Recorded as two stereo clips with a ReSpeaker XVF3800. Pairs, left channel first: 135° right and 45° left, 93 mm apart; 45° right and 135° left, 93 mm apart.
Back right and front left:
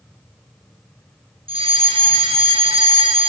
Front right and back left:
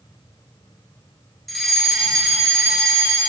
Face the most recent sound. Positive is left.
turn(degrees=45)